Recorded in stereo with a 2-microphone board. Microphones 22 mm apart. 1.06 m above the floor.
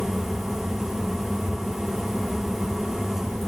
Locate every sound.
Only background noise.